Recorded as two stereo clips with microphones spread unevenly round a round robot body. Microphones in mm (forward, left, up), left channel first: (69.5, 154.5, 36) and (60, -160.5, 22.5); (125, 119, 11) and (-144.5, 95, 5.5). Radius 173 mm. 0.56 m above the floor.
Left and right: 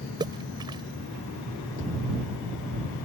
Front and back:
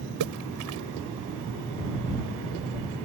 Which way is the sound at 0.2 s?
170° right.